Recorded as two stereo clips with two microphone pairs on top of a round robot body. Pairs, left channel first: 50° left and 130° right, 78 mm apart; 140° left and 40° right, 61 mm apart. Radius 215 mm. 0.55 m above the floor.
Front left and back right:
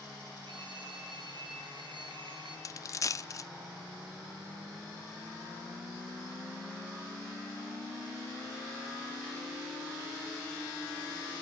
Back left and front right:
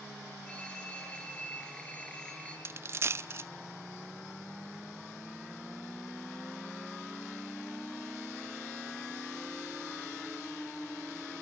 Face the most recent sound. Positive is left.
turn(degrees=0)